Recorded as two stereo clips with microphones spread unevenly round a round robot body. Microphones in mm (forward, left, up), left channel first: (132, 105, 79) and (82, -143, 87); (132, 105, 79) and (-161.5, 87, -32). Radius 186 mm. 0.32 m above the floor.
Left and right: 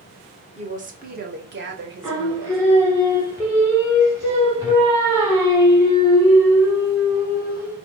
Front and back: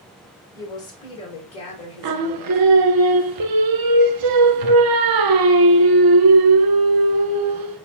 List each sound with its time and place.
0.6 s a woman speaking: 115° right, 1.3 m; by 2.6 s 75° right, 2 m
2.0 s singing: straight behind, 0.7 m